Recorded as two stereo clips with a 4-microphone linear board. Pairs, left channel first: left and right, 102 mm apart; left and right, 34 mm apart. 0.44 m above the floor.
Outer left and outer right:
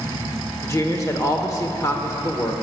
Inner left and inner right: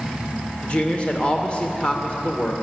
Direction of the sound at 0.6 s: 35° left (ahead or behind).